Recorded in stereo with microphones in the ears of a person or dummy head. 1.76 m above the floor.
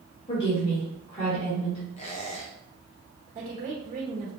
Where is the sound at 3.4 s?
45° right (ahead or behind), 1.4 m.